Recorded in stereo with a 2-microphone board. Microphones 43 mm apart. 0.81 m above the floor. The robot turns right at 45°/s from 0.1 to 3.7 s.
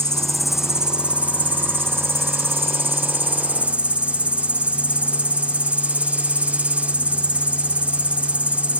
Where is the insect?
165° left; by 8.8 s 30° right.